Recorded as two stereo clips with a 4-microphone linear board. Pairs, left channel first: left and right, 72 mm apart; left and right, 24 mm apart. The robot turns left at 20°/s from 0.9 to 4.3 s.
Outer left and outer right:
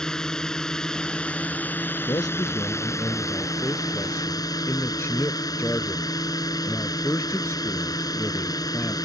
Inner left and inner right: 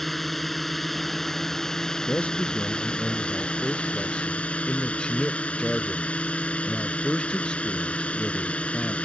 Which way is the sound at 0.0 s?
170° left.